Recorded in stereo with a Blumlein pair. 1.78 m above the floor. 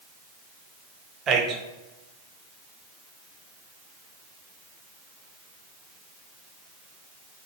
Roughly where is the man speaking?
Ahead right.